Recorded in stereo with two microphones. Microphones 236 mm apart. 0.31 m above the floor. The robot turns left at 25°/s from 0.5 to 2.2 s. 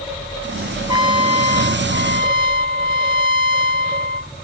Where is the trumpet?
20° right; by 4.3 s 55° right.